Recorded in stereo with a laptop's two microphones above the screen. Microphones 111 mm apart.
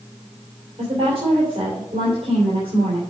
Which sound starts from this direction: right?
A woman speaking, at 0.8 s.